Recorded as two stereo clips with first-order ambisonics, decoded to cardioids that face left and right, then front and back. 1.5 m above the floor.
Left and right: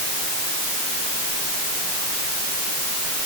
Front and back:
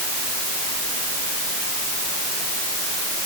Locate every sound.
Only background noise.